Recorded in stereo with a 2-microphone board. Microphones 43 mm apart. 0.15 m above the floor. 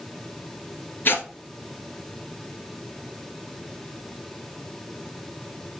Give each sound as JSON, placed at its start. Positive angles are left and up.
{"t": 1.1, "sound": "tearing paper", "side_deg": 55, "distance_m": 1.9}